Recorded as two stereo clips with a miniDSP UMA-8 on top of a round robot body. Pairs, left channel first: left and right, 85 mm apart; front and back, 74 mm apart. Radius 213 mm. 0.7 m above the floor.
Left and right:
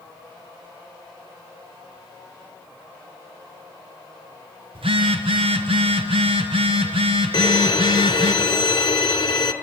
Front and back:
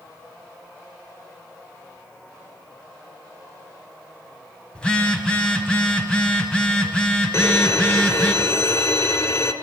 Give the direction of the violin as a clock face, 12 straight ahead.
10 o'clock.